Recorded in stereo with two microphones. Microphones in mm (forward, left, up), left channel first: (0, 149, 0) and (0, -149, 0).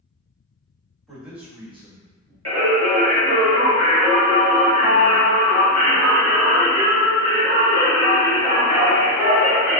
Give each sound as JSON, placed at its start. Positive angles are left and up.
{"t": 1.1, "sound": "a man speaking", "side_deg": 0, "distance_m": 1.4}
{"t": 2.5, "sound": "singing", "side_deg": -55, "distance_m": 1.3}